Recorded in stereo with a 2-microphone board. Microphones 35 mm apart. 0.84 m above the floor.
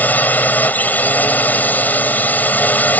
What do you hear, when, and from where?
0.0 s a drone: 55° left (ahead or behind)